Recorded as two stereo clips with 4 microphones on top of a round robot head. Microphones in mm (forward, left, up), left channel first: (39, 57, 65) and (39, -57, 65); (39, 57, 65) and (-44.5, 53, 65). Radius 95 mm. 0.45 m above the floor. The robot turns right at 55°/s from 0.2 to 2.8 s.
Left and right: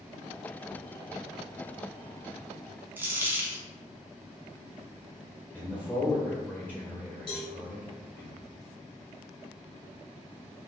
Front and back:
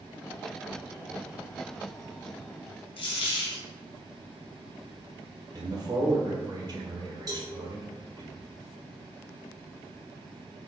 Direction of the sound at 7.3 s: 140° left.